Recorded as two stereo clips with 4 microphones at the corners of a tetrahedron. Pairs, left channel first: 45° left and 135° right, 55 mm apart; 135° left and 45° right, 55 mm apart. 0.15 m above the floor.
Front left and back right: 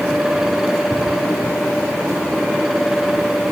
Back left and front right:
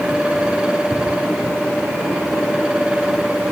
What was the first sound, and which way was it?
Only background noise.